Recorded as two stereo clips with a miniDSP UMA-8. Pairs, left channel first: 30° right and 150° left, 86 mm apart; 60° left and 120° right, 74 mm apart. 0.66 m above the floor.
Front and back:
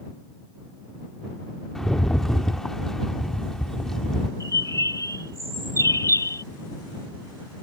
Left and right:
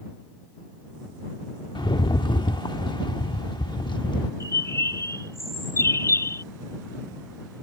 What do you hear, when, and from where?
1.8 s a rattle: 55° left
4.4 s a bird: 15° left